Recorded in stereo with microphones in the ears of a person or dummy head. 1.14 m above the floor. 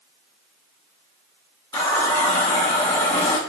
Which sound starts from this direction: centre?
A running tap, at 1.7 s.